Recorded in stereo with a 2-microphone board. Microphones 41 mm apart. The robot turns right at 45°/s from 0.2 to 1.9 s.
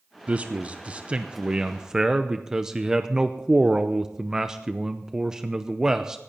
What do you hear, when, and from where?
0.3 s a man speaking: 25° right (ahead or behind), 0.7 m; by 6.2 s 10° right (ahead or behind), 0.7 m